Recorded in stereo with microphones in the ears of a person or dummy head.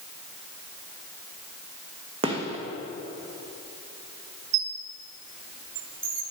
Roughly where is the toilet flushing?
I don't hear a toilet flushing.